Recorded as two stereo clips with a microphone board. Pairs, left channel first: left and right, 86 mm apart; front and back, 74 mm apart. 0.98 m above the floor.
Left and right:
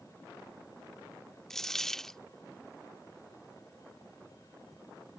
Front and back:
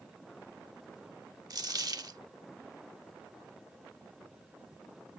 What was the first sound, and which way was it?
A dropped coin, 175° left.